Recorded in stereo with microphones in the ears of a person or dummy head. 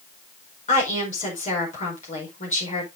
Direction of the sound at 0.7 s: 40° left (ahead or behind).